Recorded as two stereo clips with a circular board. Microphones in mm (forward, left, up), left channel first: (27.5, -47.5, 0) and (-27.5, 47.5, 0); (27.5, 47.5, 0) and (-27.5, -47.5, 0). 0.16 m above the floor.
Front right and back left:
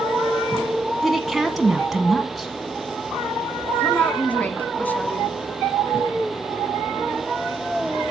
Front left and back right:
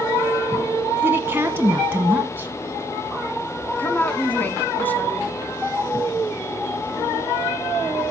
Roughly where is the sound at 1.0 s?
Behind right.